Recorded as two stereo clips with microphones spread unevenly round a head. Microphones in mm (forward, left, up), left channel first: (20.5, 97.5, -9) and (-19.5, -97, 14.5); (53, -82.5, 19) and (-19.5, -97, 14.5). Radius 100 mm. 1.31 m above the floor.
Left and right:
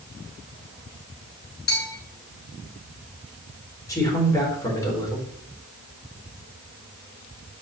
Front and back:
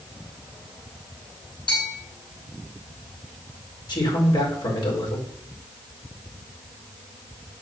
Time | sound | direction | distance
1.7 | a bell | 35° left | 4.5 m
3.9 | a man speaking | 5° left | 4.5 m